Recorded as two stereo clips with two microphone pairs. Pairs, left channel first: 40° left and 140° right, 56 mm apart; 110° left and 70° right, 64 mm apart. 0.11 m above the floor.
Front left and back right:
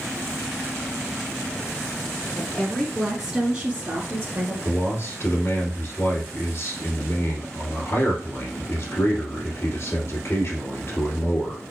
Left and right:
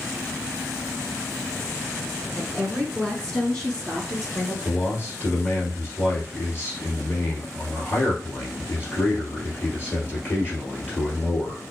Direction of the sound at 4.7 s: 60° left.